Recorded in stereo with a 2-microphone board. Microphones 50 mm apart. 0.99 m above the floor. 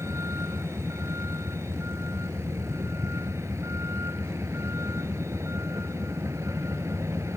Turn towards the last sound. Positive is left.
turn(degrees=-70)  # may be behind; listen again after turning